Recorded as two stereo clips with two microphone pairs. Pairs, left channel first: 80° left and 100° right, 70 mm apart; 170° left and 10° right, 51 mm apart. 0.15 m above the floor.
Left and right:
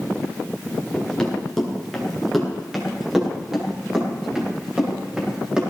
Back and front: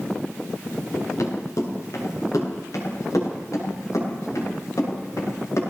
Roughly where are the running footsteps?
Behind.